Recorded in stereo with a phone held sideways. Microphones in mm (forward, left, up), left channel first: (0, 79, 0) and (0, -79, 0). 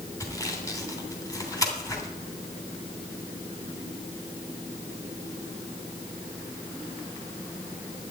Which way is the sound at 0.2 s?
20° left (ahead or behind).